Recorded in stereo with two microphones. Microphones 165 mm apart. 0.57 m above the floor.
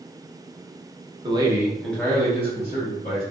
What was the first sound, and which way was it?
A man speaking, 30° right (ahead or behind).